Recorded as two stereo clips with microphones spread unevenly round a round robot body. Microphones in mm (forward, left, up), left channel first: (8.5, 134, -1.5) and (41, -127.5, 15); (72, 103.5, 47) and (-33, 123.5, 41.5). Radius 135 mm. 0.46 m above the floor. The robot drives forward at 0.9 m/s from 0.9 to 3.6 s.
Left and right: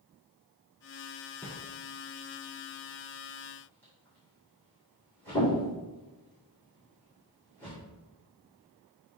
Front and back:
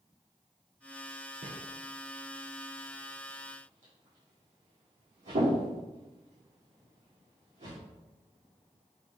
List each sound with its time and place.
1.4 s a whoosh: straight behind, 2 m